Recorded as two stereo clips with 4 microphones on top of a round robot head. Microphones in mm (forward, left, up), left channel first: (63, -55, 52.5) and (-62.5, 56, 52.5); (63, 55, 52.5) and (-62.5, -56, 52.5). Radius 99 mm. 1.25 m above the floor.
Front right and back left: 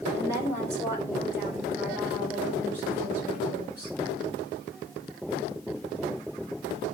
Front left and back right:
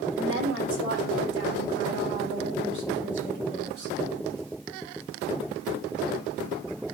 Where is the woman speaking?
150° right, 4.5 m; by 4.0 s 145° right, 7 m.